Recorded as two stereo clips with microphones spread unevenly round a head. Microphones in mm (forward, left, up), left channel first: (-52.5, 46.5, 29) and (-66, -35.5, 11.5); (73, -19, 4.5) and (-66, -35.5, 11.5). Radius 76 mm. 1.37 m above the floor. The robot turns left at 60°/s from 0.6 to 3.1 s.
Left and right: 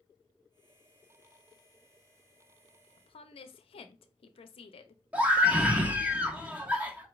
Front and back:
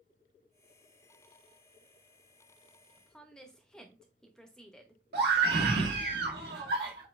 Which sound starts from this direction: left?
A woman speaking, at 3.0 s.